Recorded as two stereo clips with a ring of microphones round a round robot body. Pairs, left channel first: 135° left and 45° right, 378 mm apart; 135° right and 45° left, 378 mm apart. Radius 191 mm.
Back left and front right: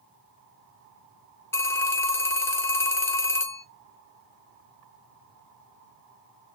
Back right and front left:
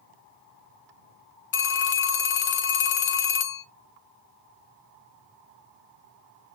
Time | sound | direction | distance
1.5 | a phone ringing | 150° right | 0.6 m